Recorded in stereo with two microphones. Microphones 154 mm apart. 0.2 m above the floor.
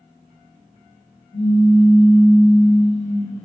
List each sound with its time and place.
1.3 s a pop: 35° left (ahead or behind), 1.9 m